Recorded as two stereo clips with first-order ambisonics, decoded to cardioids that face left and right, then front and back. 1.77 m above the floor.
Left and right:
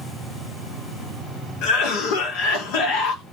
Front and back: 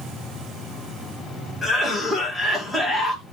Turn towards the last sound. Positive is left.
turn(degrees=85)